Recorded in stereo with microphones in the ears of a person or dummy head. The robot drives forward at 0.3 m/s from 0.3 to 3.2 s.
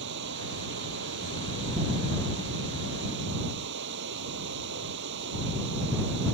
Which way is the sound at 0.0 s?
70° right (ahead or behind).